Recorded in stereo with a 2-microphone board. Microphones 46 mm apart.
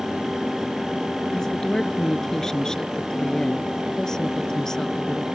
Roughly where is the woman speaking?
Centre.